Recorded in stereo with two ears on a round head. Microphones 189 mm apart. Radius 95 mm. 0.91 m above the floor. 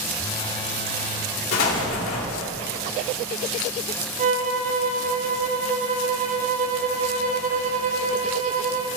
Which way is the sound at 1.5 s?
75° left (ahead or behind).